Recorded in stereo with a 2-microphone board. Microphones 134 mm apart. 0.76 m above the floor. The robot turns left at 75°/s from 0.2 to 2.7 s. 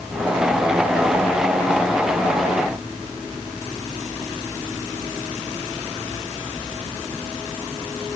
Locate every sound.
Only background noise.